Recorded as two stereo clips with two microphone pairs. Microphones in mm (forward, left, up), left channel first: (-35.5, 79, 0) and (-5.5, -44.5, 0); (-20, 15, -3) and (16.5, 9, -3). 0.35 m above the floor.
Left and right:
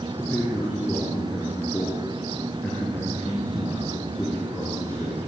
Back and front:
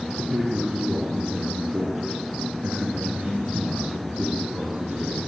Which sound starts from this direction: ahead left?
A man speaking, at 0.2 s.